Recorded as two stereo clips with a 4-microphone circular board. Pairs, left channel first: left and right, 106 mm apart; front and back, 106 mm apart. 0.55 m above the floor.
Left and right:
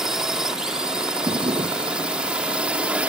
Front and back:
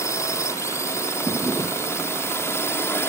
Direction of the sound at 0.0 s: 10° right.